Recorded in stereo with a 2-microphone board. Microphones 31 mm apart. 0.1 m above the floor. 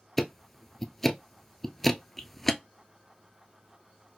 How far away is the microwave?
No microwave in this recording.